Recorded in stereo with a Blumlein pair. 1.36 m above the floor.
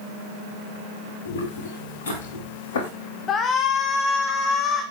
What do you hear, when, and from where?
1.2 s footsteps: 60° left, 7 m; by 2.9 s 55° left, 5.5 m
3.3 s a shout: 25° left, 2 m